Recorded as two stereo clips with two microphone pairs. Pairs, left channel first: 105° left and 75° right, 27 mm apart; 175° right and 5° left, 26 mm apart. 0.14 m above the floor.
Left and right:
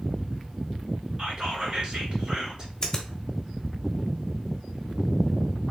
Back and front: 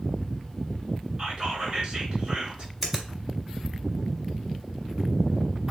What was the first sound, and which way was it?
Whispering, 30° right.